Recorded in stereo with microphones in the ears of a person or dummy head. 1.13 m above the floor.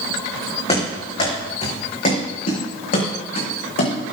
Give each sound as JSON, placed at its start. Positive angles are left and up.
{"t": 0.7, "sound": "running footsteps", "side_deg": 35, "distance_m": 4.5}